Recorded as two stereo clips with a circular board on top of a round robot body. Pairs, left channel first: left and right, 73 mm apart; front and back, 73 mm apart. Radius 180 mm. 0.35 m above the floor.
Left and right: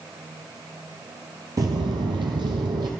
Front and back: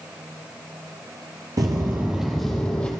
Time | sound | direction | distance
1.6 | footsteps | 135° right | 0.5 m